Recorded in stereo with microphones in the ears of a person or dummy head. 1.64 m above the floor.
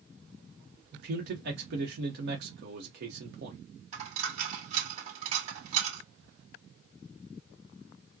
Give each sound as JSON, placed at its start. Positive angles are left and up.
{"t": 0.9, "sound": "a man speaking", "side_deg": -60, "distance_m": 0.9}
{"t": 3.9, "sound": "a dropped coin", "side_deg": -40, "distance_m": 2.5}